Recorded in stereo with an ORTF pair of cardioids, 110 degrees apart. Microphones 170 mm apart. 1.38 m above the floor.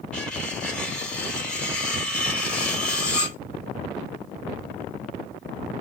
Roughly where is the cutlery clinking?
Ahead.